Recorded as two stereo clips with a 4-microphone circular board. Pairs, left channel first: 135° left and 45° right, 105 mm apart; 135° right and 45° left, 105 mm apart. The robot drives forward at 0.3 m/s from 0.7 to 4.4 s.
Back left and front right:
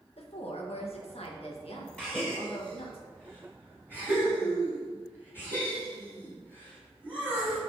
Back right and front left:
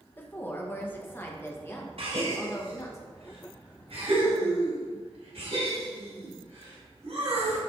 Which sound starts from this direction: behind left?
A woman speaking, at 0.2 s.